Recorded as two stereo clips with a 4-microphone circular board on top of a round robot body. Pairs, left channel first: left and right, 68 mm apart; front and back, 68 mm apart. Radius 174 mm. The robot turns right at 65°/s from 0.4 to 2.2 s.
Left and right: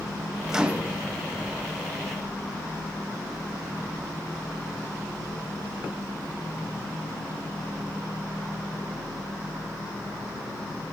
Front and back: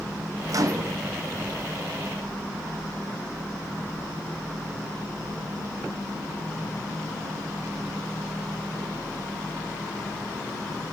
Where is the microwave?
175° right, 0.6 m; by 1.0 s 145° right, 0.6 m.